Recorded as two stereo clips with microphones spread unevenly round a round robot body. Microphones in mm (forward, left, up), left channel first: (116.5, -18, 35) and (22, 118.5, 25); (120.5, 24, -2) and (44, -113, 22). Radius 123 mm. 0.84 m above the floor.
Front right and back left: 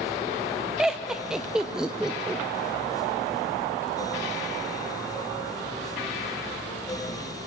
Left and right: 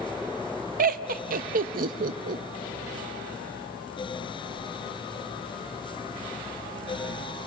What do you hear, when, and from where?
0.8 s laughter: 150° right, 0.5 m